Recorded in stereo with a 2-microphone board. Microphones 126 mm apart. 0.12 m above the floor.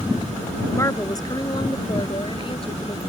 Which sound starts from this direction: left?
A woman speaking, at 0.7 s.